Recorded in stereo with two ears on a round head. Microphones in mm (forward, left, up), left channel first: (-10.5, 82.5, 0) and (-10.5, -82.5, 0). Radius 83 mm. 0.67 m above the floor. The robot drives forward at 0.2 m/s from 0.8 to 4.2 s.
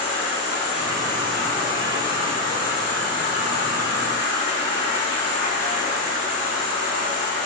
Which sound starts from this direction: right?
An insect, at 0.0 s.